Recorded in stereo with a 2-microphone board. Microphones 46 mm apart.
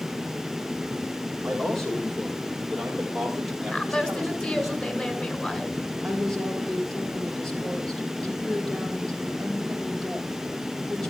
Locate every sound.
1.4 s a man speaking: 10° left (ahead or behind), 7 m; by 4.7 s 5° right (ahead or behind), 5 m
3.7 s a woman speaking: 25° left (ahead or behind), 2 m
6.0 s a woman speaking: 5° left (ahead or behind), 6.5 m